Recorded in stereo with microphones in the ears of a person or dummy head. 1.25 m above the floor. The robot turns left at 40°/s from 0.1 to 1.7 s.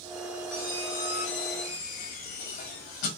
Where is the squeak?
145° left, 1.1 m; by 3.1 s 100° left, 1.1 m.